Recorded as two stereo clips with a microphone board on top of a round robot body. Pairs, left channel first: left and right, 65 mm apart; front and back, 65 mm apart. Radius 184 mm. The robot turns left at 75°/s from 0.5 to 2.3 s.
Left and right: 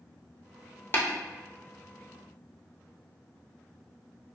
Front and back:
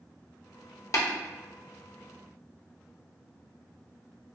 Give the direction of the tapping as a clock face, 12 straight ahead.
11 o'clock.